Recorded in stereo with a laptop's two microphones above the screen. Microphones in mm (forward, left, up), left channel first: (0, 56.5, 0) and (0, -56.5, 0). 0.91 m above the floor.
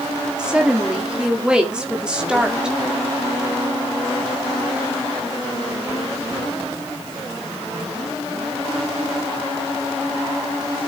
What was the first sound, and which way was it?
A woman speaking, 10° right (ahead or behind).